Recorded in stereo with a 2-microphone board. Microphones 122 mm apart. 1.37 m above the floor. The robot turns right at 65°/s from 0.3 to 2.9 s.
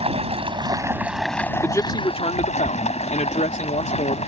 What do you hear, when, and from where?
0.0 s running water: 60° right; by 4.3 s 110° left
1.6 s a man speaking: 15° left; by 4.2 s 100° left